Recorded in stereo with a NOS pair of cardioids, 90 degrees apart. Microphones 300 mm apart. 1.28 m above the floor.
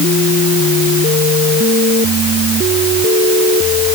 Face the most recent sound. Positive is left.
No sound to turn to.